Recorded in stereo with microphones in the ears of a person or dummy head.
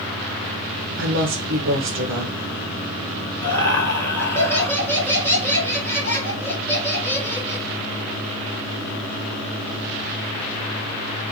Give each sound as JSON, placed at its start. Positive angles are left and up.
{"t": 1.0, "sound": "a woman speaking", "side_deg": -60, "distance_m": 0.5}
{"t": 3.4, "sound": "laughter", "side_deg": 15, "distance_m": 1.2}